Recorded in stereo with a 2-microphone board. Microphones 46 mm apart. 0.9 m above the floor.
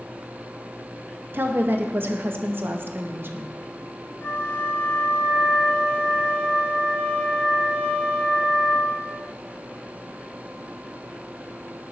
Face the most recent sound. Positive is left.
turn(degrees=50)  # may be behind; listen again after turning